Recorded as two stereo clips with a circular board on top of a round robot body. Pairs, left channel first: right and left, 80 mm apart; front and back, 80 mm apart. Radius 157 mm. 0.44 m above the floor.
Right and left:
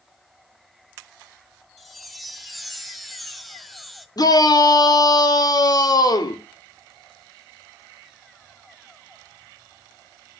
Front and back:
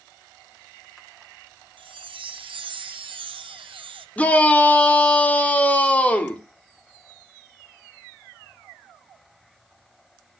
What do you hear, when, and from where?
1.8 s a chime: straight behind, 0.6 m
4.2 s a shout: 70° right, 2 m